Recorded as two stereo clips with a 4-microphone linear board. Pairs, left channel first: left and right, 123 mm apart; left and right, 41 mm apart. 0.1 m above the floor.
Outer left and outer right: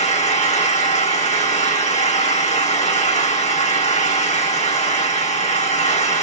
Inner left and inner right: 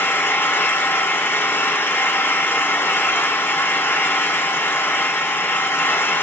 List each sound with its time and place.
0.0 s an engine running: 75° left (ahead or behind), 4.5 m